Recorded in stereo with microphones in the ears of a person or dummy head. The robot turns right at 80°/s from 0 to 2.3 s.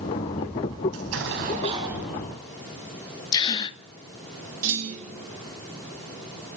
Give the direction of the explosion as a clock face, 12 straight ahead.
3 o'clock.